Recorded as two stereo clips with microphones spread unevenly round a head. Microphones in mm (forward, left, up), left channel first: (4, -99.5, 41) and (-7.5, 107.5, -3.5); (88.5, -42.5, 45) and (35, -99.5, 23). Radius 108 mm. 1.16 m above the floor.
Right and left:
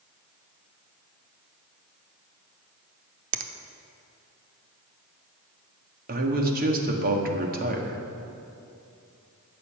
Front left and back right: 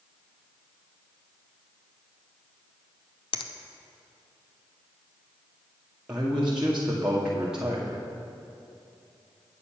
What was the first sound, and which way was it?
A finger snap, 55° left.